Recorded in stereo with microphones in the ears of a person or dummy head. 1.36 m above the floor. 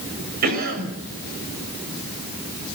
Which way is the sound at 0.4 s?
50° right (ahead or behind).